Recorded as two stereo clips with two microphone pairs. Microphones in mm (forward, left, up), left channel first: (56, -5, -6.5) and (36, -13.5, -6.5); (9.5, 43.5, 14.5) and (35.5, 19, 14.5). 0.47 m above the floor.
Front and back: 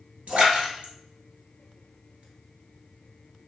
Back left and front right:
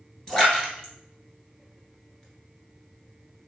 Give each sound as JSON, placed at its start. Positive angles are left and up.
{"t": 0.3, "sound": "a splash", "azimuth_deg": -150, "distance_m": 1.1}